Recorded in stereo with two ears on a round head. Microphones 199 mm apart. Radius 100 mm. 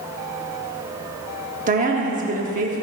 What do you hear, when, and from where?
1.7 s a woman speaking: 35° right (ahead or behind), 1.0 m